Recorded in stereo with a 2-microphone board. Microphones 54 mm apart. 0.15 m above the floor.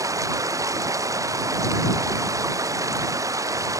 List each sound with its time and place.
0.0 s running water: 85° right